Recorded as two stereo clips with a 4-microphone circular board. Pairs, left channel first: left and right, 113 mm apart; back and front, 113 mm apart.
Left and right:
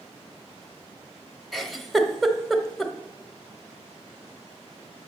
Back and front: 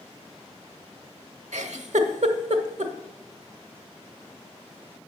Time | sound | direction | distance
1.5 | a giggle | straight ahead | 0.8 m